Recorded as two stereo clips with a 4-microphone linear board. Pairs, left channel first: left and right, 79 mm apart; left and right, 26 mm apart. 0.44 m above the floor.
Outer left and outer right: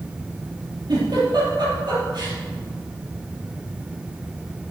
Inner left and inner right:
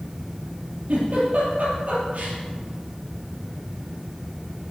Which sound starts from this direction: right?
A giggle, at 0.9 s.